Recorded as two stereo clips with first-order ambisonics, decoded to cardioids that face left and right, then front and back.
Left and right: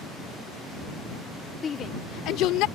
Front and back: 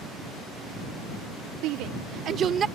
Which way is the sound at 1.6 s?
160° left.